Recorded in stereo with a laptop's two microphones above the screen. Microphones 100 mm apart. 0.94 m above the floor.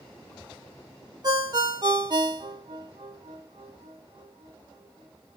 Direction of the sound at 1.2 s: 45° right (ahead or behind).